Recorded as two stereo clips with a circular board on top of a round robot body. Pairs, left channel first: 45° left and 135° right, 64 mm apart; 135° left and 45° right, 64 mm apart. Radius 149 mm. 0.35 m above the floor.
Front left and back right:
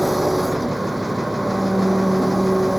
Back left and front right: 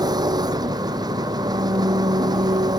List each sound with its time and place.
0.0 s an engine running: 45° right